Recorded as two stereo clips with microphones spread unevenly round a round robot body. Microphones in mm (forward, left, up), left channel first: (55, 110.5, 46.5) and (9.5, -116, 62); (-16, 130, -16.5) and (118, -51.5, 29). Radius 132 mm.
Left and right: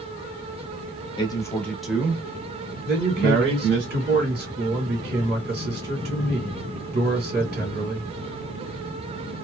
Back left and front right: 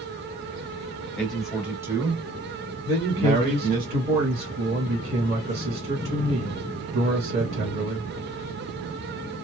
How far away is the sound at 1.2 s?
About 1.1 m.